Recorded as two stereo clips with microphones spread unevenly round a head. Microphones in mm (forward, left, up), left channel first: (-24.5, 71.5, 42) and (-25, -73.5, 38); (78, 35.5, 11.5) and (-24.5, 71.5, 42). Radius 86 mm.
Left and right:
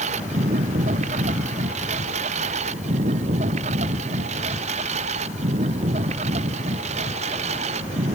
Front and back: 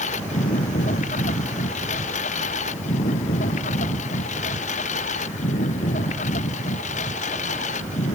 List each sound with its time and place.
0.0 s a lawn mower: 40° right